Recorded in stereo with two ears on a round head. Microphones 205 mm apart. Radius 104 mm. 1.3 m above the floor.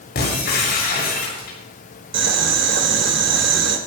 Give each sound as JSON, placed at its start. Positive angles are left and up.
{"t": 0.1, "sound": "breaking glass", "side_deg": 45, "distance_m": 7.5}
{"t": 2.1, "sound": "boiling", "side_deg": -50, "distance_m": 4.0}